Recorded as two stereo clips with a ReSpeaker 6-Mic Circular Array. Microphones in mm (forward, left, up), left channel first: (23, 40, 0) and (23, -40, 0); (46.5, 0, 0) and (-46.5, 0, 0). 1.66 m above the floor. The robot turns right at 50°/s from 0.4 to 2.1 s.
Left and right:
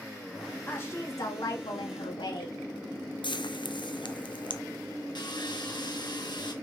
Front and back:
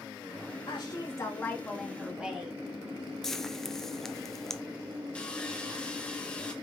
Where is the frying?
85° left, 0.7 m.